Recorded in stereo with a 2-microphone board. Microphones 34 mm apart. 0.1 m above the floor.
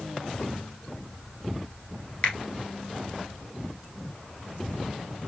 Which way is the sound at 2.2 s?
30° left (ahead or behind).